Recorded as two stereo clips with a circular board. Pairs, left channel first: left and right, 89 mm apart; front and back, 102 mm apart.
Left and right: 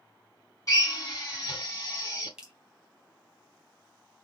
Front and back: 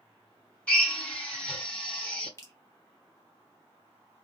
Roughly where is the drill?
Left.